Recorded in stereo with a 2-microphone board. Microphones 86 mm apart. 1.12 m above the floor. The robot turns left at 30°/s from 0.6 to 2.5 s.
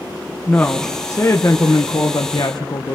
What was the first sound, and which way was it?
A woman speaking, 160° left.